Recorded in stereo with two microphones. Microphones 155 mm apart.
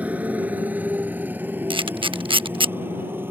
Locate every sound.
0.0 s a motorcycle: 10° right (ahead or behind); by 3.3 s 15° right (ahead or behind)
1.7 s a camera shutter: 35° right (ahead or behind)